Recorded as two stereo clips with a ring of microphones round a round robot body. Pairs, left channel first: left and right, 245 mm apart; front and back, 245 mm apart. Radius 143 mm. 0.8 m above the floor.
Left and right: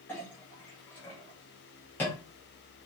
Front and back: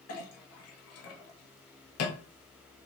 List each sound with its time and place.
0.1 s a clink: 10° left, 0.8 m